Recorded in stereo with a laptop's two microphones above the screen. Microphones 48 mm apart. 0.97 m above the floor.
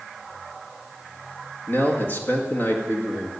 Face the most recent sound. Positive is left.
turn(degrees=45)  # may be behind; listen again after turning